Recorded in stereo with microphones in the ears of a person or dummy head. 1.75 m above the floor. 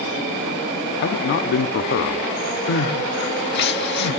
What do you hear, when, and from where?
1.0 s a man speaking: 55° left (ahead or behind), 0.5 m
2.7 s crying: 60° left (ahead or behind), 1.2 m